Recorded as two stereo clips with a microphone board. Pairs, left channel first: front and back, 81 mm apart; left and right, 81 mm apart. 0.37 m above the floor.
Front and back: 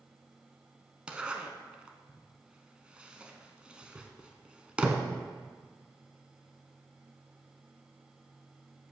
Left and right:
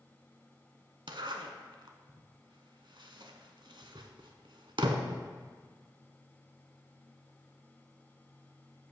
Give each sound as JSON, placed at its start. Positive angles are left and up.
{"t": 1.1, "sound": "a zipper", "azimuth_deg": -105, "distance_m": 0.8}